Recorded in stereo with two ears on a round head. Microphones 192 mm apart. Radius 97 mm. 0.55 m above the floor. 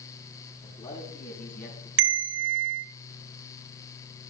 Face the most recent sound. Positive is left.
turn(degrees=-65)  # may be behind; listen again after turning